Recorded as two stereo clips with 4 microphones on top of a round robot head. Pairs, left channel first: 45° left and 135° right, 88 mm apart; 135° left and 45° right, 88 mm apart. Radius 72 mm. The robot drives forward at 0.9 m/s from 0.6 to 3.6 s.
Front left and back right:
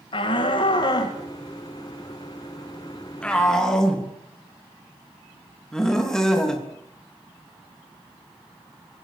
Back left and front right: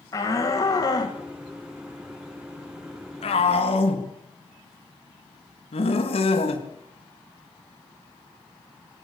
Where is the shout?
80° left, 2.5 m; by 6.7 s 130° left, 3.5 m.